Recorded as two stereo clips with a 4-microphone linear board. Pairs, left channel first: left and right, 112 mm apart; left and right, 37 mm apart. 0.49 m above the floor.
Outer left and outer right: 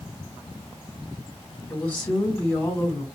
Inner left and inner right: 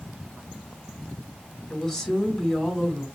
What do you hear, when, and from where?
1.7 s a woman speaking: 10° left (ahead or behind), 2.5 m